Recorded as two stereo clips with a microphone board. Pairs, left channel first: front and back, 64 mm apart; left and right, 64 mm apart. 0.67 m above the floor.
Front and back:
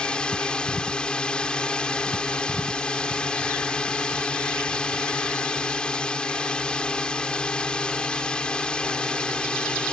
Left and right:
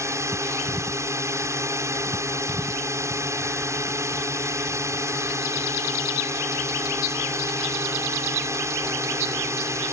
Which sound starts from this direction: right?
A drone, at 0.0 s.